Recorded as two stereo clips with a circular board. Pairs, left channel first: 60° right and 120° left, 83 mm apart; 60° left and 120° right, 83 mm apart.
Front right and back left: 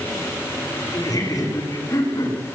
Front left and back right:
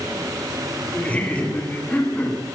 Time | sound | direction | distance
0.9 | laughter | 15° right | 9.5 m